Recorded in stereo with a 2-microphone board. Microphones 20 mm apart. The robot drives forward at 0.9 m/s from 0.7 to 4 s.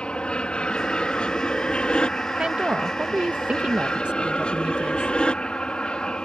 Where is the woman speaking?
50° right (ahead or behind); by 5.1 s 80° right.